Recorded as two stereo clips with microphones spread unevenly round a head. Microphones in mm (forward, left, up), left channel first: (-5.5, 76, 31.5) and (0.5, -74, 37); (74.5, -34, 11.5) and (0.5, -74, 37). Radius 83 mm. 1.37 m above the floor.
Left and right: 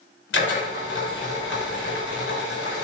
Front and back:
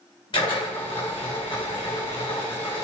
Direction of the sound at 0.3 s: 90° left.